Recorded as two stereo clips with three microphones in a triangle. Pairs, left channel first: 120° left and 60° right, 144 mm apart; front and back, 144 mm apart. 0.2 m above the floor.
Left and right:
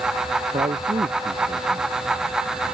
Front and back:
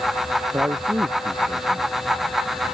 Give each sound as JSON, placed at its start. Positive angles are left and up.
{"t": 0.5, "sound": "a man speaking", "azimuth_deg": -105}